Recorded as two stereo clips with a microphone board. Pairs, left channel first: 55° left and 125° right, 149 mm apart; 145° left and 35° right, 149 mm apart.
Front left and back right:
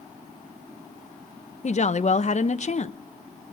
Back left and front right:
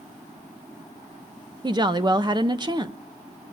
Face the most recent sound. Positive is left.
turn(degrees=25)